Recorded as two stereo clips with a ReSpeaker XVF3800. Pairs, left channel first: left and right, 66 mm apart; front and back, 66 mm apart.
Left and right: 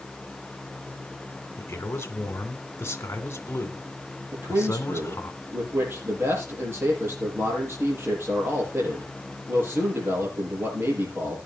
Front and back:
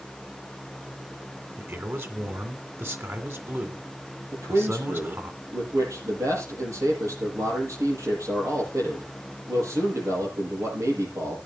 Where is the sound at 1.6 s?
135° left, 2 m.